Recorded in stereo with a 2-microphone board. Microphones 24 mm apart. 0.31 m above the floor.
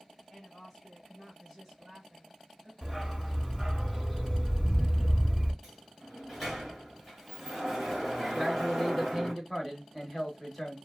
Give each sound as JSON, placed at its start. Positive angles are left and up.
{"t": 0.3, "sound": "a woman speaking", "side_deg": 30, "distance_m": 1.5}
{"t": 2.8, "sound": "a dog barking", "side_deg": 0, "distance_m": 0.7}
{"t": 5.6, "sound": "a sliding door", "side_deg": 0, "distance_m": 1.6}
{"t": 8.3, "sound": "a man speaking", "side_deg": 5, "distance_m": 0.9}